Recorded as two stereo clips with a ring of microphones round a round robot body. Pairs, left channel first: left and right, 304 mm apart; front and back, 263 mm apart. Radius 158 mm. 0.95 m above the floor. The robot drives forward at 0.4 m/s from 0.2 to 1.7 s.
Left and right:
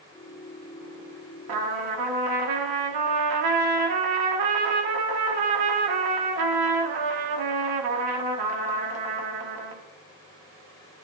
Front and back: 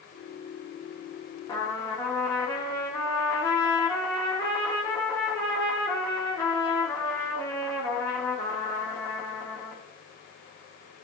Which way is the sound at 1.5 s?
80° right.